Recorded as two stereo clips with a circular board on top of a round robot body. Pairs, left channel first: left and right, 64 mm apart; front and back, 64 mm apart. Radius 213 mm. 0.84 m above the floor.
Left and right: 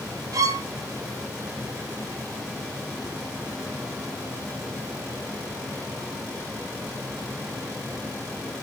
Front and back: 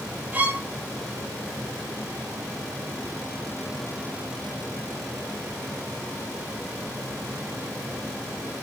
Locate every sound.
0.3 s a violin: 115° right, 0.6 m